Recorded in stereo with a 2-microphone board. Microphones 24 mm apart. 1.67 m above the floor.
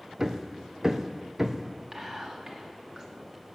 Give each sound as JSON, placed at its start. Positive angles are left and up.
{"t": 0.2, "sound": "hammering", "side_deg": -20, "distance_m": 0.7}
{"t": 1.9, "sound": "whispering", "side_deg": -25, "distance_m": 2.5}